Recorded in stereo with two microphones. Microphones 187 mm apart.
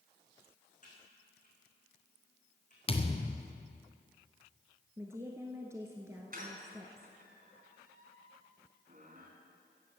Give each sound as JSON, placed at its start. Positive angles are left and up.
{"t": 0.8, "sound": "typing on a keyboard", "side_deg": 40, "distance_m": 4.5}
{"t": 2.9, "sound": "a thud", "side_deg": 30, "distance_m": 1.6}
{"t": 5.0, "sound": "a woman speaking", "side_deg": -15, "distance_m": 1.3}
{"t": 6.3, "sound": "a squeak", "side_deg": -50, "distance_m": 4.0}